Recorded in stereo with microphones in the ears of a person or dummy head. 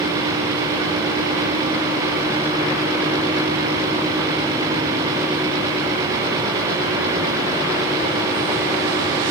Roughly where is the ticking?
No ticking in this recording.